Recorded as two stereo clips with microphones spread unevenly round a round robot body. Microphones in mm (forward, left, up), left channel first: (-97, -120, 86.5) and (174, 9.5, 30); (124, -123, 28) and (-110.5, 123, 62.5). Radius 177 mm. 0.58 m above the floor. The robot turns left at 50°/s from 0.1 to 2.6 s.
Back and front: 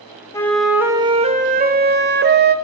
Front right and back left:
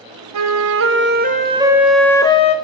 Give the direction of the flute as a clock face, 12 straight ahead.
8 o'clock.